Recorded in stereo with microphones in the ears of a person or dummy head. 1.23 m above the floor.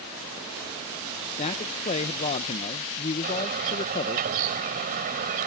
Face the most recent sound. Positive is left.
turn(degrees=-50)  # may be behind; listen again after turning